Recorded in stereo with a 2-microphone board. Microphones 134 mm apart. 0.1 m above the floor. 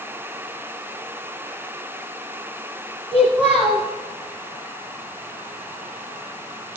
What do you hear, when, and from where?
3.1 s a child speaking: 10° right (ahead or behind), 1.2 m